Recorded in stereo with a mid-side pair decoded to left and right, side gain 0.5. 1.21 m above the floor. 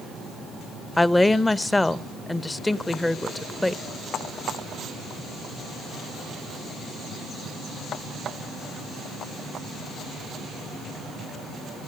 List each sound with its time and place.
1.0 s a woman speaking: 15° left, 0.9 m